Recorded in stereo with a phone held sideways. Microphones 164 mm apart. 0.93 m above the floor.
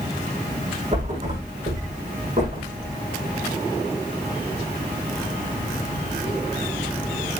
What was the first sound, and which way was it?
A thud, 40° right (ahead or behind).